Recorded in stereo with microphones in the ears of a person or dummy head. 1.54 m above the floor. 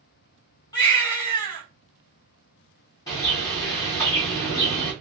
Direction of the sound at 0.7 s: 20° left (ahead or behind).